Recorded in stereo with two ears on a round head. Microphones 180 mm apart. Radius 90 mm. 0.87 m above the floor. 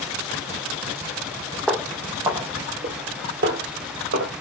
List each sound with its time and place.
1.7 s footsteps: centre (ahead or behind), 1.2 m; by 4.3 s 65° right (ahead or behind), 1.9 m